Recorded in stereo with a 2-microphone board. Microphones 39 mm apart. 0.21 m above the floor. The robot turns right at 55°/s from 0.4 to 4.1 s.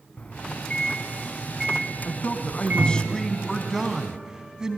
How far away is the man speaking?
About 2 m.